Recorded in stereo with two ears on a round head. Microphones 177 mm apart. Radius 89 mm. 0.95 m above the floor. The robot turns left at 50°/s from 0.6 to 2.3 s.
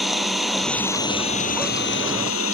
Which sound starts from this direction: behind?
An engine running, at 0.0 s.